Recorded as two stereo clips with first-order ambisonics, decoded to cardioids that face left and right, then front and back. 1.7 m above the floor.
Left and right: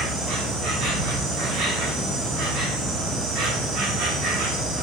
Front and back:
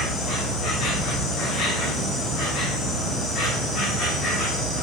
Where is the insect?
65° right, 7.5 m.